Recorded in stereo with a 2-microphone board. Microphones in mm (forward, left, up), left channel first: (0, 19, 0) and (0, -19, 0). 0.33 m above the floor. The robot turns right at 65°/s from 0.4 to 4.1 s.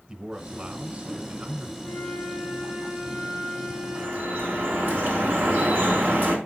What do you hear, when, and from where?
0.1 s a man speaking: 145° right, 1.2 m; by 1.7 s 60° right, 1.2 m
1.8 s a flute: 145° left, 4.5 m; by 5.0 s 65° right, 4.5 m
4.0 s dripping: 60° right (ahead or behind), 3 m; by 6.4 s 65° right (ahead or behind), 3 m